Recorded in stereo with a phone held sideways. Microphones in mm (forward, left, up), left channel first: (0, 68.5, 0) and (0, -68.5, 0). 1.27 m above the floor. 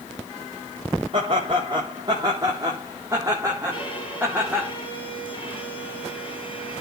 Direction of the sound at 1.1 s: 40° right (ahead or behind).